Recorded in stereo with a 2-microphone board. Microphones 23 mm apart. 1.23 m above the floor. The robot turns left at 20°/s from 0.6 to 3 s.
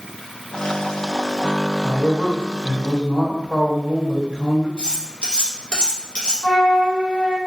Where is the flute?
55° left (ahead or behind), 1.0 m.